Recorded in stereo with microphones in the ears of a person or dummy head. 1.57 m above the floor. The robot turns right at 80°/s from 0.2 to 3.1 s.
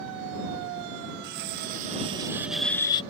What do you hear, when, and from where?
1.2 s cutlery clinking: 115° right; by 3.0 s 30° left